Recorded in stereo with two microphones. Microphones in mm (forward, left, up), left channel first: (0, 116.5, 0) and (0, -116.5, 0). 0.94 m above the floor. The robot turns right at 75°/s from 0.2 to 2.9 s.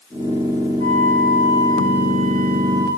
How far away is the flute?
About 4.5 m.